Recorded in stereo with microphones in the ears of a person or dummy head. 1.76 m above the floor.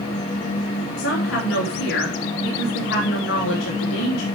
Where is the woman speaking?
75° left (ahead or behind), 3.5 m.